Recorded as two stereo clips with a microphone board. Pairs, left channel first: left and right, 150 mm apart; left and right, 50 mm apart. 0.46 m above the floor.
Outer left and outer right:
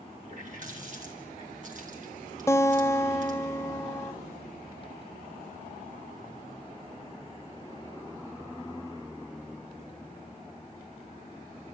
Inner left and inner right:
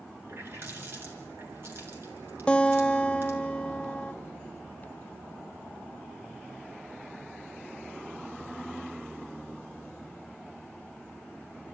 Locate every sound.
0.2 s a running tap: 60° right (ahead or behind), 5 m
2.5 s a guitar: 20° left (ahead or behind), 0.5 m